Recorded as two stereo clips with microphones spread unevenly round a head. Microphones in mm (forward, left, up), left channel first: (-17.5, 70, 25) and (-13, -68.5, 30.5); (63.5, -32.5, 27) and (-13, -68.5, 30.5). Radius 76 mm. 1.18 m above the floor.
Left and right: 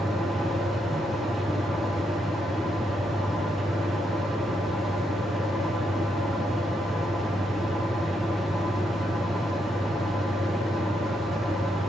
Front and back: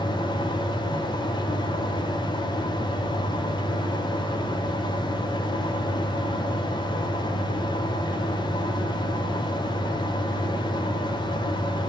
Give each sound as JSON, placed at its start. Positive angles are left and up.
{"t": 0.0, "sound": "a fan", "azimuth_deg": 5, "distance_m": 0.8}